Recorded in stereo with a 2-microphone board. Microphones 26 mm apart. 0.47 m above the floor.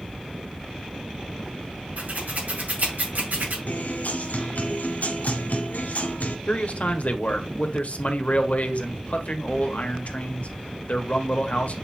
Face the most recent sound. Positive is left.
turn(degrees=60)  # may be behind; listen again after turning